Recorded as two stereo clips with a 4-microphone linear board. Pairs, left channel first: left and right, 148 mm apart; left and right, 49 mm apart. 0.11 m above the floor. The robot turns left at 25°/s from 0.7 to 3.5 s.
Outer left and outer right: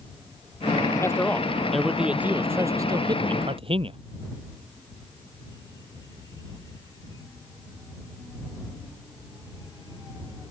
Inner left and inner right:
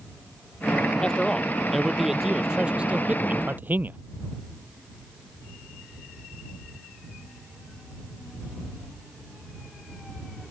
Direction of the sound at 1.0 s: 20° left.